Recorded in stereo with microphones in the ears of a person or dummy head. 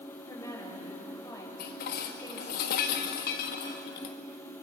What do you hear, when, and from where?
0.3 s a woman speaking: 20° left (ahead or behind), 7.5 m
1.6 s dishes clattering: 55° left (ahead or behind), 1.7 m